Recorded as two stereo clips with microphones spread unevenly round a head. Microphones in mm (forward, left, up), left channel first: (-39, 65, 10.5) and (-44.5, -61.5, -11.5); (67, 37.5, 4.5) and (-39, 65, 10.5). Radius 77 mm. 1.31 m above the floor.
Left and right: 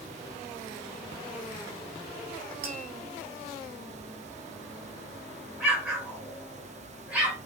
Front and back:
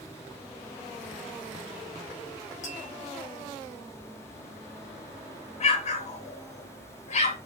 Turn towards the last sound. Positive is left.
turn(degrees=-5)